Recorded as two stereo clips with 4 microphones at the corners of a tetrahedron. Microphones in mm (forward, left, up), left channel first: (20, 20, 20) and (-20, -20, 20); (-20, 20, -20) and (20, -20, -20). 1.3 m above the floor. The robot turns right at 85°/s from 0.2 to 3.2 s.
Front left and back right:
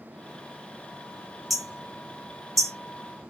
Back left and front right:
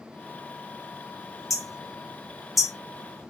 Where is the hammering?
135° left, 0.8 m; by 2.7 s 120° right, 0.8 m.